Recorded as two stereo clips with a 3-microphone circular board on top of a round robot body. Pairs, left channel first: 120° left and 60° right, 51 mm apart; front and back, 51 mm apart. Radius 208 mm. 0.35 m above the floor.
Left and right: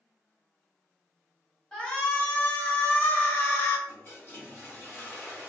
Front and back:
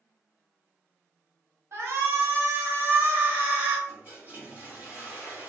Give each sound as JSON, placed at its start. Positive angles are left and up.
{"t": 1.7, "sound": "a shout", "azimuth_deg": -165, "distance_m": 1.6}
{"t": 3.9, "sound": "a toilet flushing", "azimuth_deg": 140, "distance_m": 2.0}